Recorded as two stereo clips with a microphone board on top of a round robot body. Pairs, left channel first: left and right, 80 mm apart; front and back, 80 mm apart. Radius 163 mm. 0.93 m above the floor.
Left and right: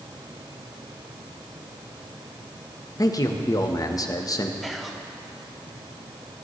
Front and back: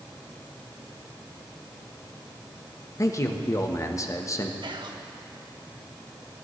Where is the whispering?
Straight behind, 1.5 m.